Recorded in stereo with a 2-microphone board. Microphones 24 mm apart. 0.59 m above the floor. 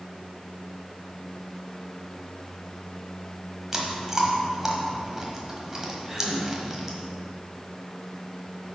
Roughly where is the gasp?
Centre.